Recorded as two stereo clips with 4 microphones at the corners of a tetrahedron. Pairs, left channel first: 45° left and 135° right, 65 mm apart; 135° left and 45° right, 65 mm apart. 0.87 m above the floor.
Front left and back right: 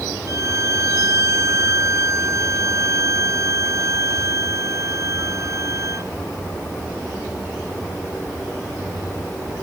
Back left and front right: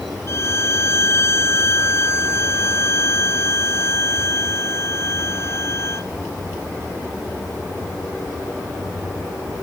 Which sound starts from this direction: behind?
A violin, at 0.3 s.